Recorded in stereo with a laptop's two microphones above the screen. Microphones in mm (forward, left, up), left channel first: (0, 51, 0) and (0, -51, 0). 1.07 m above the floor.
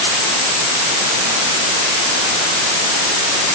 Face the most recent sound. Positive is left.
No sound to turn to.